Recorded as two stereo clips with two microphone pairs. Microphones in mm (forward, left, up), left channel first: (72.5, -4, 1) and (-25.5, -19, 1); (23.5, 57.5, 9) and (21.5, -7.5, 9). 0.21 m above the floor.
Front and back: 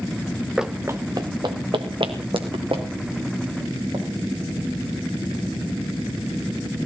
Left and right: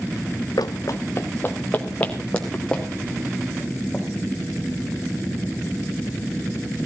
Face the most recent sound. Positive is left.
turn(degrees=170)